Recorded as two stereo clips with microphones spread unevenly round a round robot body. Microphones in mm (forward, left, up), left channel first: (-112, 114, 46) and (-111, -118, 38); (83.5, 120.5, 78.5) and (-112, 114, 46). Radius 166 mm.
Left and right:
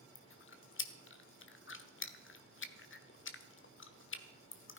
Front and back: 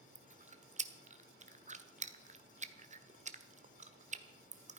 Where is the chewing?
125° left, 1.4 m.